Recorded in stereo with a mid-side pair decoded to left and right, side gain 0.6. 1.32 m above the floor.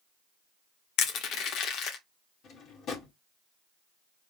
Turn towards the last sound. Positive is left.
turn(degrees=55)